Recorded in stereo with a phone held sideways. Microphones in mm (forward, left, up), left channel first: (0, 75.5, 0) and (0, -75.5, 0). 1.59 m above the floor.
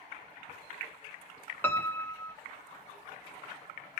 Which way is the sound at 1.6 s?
15° left (ahead or behind).